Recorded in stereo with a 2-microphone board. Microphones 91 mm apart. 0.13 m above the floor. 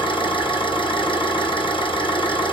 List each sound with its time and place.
0.0 s an engine running: 70° left (ahead or behind), 1.9 m